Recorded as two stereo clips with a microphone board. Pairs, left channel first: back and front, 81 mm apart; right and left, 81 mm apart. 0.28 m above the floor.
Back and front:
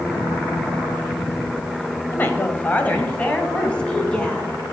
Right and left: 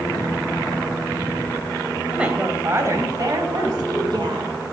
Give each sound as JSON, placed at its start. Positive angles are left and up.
{"t": 2.1, "sound": "a woman speaking", "azimuth_deg": 160, "distance_m": 1.1}